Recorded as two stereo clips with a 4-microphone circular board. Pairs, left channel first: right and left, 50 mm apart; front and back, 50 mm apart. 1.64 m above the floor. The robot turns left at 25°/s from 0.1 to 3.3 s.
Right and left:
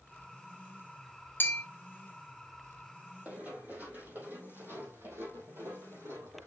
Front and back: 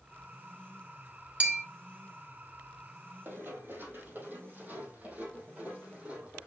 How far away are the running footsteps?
About 3.5 m.